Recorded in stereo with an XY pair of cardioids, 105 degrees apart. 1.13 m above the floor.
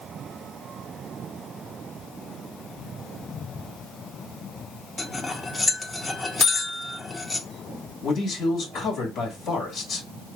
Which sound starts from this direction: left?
A man speaking, at 8.0 s.